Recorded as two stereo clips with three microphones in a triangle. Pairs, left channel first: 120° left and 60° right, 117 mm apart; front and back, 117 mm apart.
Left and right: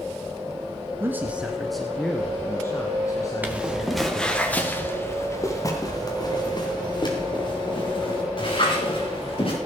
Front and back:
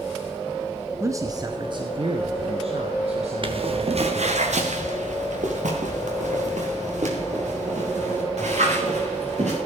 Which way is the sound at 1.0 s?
120° right.